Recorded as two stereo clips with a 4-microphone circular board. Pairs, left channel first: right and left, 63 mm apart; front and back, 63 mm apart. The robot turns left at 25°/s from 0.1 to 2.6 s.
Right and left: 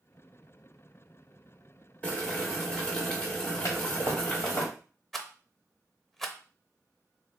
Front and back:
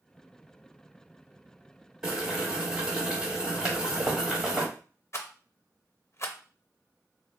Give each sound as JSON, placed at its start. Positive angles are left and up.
{"t": 2.0, "sound": "boiling", "azimuth_deg": -115, "distance_m": 1.1}
{"t": 3.6, "sound": "a toilet flushing", "azimuth_deg": -105, "distance_m": 1.3}
{"t": 5.1, "sound": "a rattle", "azimuth_deg": -5, "distance_m": 0.6}